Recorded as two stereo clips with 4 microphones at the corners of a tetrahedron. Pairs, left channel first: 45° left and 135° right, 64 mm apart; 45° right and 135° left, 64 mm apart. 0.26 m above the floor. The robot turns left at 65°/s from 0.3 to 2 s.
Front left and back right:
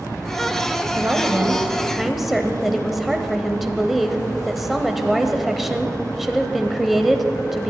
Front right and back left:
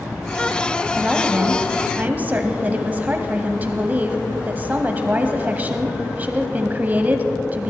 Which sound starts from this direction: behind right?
A woman speaking, at 1.0 s.